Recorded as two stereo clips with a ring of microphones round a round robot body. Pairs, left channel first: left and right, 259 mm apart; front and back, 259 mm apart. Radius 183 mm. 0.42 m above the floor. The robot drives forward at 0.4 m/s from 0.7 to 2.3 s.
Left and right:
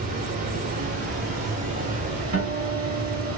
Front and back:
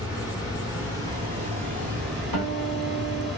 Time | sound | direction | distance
0.0 | running water | 100° right | 0.9 m
2.3 | a guitar | 145° right | 1.3 m